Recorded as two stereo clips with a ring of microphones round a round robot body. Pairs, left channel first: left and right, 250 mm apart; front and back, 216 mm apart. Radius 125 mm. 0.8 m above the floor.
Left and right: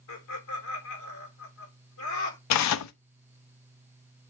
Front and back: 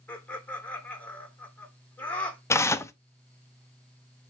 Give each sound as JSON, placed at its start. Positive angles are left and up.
{"t": 0.1, "sound": "laughter", "azimuth_deg": 85, "distance_m": 3.0}
{"t": 2.5, "sound": "tearing paper", "azimuth_deg": 75, "distance_m": 0.6}